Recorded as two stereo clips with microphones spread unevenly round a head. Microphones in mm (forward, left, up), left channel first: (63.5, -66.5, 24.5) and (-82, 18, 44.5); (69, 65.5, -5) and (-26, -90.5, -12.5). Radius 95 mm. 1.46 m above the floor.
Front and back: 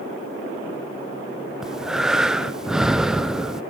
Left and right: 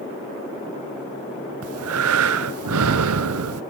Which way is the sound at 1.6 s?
125° right.